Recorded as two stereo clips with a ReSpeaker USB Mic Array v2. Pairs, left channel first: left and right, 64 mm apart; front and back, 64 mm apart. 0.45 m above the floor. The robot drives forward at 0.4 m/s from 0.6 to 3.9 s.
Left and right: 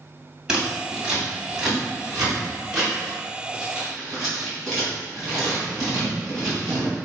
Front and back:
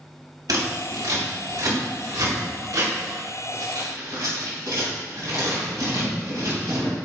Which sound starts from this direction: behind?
Scissors, at 0.5 s.